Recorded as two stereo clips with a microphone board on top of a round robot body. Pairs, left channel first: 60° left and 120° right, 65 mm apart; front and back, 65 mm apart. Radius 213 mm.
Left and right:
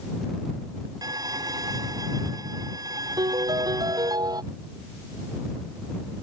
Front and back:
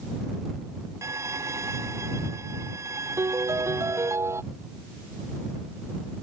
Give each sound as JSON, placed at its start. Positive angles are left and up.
{"t": 1.0, "sound": "a violin", "azimuth_deg": -140}
{"t": 3.2, "sound": "a piano", "azimuth_deg": -135}